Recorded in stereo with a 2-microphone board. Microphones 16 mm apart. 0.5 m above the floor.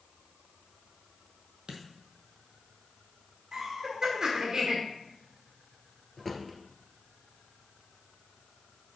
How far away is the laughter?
About 1.4 m.